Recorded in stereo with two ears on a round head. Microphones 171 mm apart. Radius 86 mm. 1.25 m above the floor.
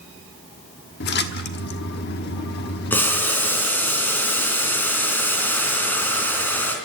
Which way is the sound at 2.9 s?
10° left (ahead or behind).